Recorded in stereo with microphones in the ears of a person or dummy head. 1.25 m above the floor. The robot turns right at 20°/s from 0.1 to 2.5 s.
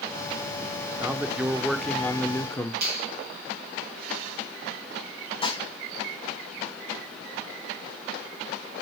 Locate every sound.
1.0 s a man speaking: 20° right, 0.8 m; by 2.7 s 10° left, 0.8 m
2.8 s a finger snap: 55° right (ahead or behind), 2.5 m
5.4 s dishes clattering: 30° left (ahead or behind), 1.8 m